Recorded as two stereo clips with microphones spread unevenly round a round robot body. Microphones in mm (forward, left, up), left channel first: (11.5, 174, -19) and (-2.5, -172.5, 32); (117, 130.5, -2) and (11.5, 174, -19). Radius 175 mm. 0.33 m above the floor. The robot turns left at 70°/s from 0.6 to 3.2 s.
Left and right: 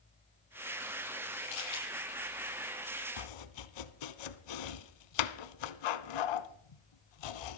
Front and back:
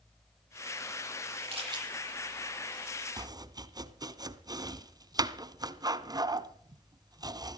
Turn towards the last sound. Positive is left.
turn(degrees=100)